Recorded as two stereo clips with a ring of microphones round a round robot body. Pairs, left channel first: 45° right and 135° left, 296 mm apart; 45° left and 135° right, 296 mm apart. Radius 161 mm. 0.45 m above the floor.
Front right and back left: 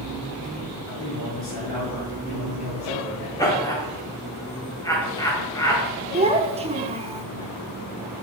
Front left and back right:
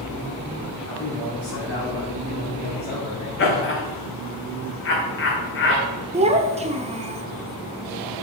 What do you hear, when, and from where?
0.8 s a man speaking: 5° right, 4 m; by 3.3 s 30° right, 3.5 m
3.4 s laughter: 30° left, 1.3 m
6.1 s a child speaking: straight behind, 0.9 m